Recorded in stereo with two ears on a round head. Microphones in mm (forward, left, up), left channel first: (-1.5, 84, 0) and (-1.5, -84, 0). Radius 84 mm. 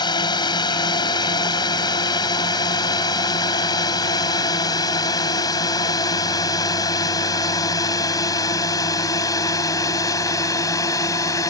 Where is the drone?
25° left (ahead or behind); by 11.5 s 20° left (ahead or behind).